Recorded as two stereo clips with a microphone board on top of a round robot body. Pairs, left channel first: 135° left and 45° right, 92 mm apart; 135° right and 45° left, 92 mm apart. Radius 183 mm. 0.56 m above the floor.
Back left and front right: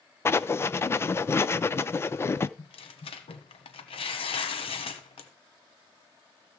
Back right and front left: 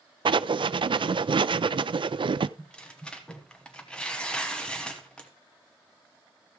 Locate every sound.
0.2 s writing: 70° left, 0.5 m
2.6 s tearing paper: 145° left, 1.2 m